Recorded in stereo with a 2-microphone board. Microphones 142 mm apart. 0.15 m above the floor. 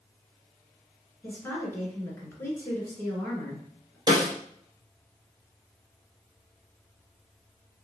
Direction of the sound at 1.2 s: 15° left (ahead or behind).